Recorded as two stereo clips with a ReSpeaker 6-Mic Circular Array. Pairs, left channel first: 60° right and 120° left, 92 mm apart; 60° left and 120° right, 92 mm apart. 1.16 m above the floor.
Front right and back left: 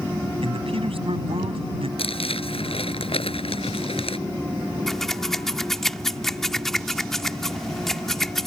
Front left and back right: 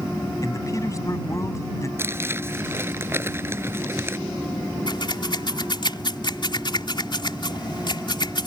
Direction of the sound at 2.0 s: 60° right.